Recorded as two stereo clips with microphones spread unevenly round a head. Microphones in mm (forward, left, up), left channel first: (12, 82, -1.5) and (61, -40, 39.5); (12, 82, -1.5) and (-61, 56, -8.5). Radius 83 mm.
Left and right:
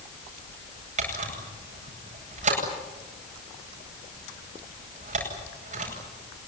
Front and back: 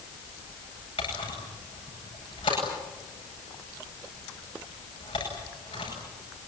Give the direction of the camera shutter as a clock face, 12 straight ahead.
1 o'clock.